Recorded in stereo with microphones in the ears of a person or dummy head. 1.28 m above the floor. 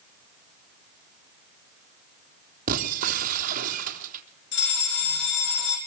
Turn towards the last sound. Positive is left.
turn(degrees=55)  # may be behind; listen again after turning